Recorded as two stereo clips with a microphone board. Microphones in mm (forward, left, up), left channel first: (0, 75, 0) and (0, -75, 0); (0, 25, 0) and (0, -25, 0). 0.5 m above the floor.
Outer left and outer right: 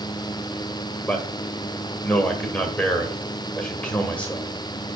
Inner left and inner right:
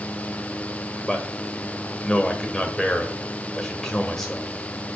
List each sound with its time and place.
1.1 s a man speaking: 10° left (ahead or behind), 1.6 m